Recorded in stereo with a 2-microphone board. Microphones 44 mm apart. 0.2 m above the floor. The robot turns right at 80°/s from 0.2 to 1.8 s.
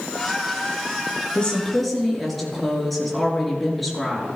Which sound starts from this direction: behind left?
A woman speaking, at 1.4 s.